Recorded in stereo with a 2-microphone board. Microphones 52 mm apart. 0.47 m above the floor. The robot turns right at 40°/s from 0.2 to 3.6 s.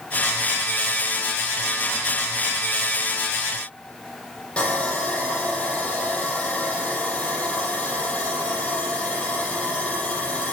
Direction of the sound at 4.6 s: 20° left (ahead or behind).